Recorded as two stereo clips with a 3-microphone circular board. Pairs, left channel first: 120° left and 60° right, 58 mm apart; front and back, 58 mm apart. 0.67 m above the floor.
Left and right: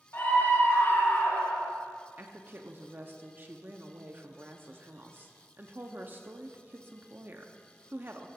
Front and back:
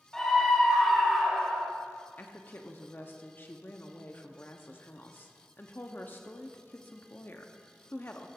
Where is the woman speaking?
30° right, 0.9 m.